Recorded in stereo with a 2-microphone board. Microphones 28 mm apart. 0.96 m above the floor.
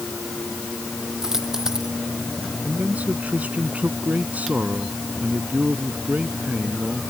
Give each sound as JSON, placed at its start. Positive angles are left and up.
{"t": 1.2, "sound": "a dropped coin", "side_deg": -15}
{"t": 2.6, "sound": "a man speaking", "side_deg": -65}